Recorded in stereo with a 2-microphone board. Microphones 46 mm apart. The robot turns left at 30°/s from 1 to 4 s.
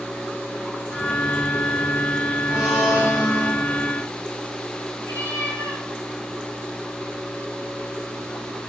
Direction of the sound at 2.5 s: 160° right.